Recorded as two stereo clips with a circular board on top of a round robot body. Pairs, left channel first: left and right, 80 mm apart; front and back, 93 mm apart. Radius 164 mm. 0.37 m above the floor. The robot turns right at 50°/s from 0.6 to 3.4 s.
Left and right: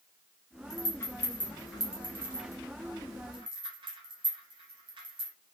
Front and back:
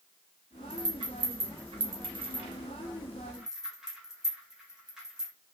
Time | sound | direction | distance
0.7 | a rattle | 130° left | 1.2 m